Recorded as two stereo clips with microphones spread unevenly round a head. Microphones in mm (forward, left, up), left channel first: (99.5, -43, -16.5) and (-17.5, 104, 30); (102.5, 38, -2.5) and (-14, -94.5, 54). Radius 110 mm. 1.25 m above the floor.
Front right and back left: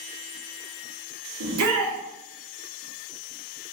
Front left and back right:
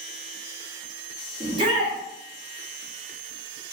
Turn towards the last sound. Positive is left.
turn(degrees=160)